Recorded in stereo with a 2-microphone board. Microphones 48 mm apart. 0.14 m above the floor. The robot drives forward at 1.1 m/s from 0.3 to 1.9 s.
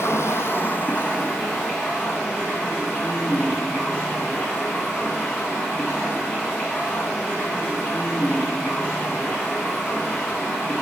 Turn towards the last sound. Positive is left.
turn(degrees=15)  # may be behind; listen again after turning